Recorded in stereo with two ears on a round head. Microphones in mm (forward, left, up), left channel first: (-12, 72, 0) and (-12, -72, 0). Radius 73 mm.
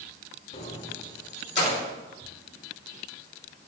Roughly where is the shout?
I don't hear a shout.